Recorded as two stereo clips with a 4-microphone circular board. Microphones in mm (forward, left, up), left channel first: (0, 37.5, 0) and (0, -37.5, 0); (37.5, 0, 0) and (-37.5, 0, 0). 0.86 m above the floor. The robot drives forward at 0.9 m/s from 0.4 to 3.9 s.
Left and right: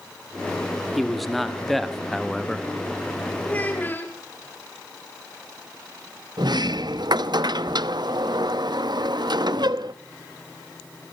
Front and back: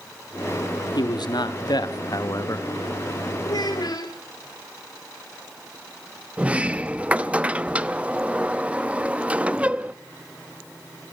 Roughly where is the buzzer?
I don't hear a buzzer.